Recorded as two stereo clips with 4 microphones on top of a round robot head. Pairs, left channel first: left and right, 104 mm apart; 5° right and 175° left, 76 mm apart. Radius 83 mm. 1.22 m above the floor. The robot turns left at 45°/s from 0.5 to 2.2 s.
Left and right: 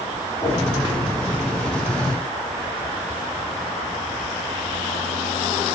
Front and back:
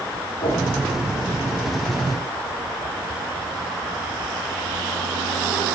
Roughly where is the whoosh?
Ahead.